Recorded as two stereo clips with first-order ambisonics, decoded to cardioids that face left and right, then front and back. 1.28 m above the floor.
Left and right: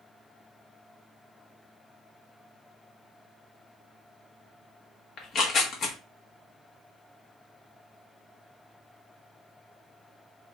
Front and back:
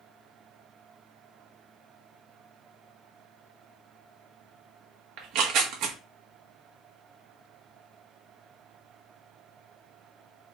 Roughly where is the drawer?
No drawer in this recording.